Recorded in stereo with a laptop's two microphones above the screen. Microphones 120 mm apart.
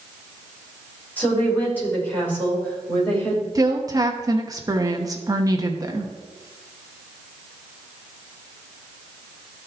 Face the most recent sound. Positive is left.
turn(degrees=-30)  # may be behind; listen again after turning